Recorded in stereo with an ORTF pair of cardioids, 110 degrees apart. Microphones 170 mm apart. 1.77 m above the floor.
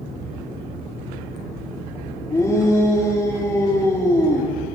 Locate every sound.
2.3 s a shout: 15° left, 4 m